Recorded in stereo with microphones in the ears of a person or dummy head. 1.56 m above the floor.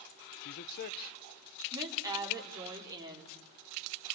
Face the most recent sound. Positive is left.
turn(degrees=-20)  # may be behind; listen again after turning